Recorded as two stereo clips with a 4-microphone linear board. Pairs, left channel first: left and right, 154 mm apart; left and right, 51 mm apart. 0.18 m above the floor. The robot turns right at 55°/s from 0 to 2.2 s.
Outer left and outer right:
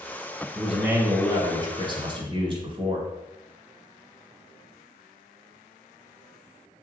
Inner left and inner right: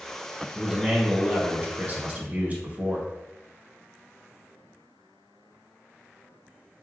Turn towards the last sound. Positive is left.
turn(degrees=-85)